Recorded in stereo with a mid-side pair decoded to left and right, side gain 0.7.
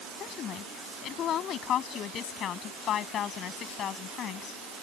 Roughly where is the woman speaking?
Ahead left.